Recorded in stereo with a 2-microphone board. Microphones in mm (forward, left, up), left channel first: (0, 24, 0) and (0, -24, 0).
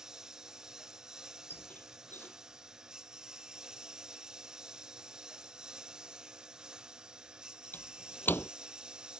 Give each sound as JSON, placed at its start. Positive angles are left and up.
{"t": 0.0, "sound": "a lawn mower", "side_deg": -10}
{"t": 1.5, "sound": "a squeak", "side_deg": 40}